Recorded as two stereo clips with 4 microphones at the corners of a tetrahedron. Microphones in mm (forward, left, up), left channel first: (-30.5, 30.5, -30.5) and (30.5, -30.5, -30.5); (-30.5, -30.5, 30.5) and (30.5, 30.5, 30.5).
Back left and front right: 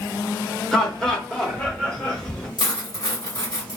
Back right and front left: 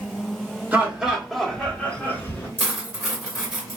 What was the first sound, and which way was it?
Laughter, 65° left.